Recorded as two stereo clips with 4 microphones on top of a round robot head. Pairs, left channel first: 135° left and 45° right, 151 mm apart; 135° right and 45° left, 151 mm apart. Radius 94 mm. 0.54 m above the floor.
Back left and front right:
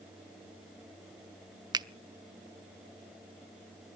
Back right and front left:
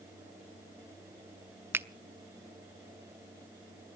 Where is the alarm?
No alarm in this recording.